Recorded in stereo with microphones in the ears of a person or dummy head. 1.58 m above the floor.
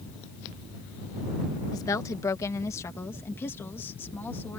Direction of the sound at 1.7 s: 20° left (ahead or behind).